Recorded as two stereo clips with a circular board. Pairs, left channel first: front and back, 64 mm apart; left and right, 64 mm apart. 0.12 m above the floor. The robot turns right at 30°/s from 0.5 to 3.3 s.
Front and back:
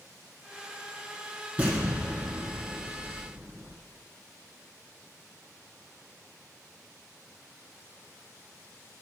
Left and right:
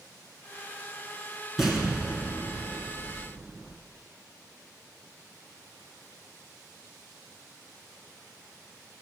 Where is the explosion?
170° right, 1.5 m; by 3.7 s 120° right, 1.5 m.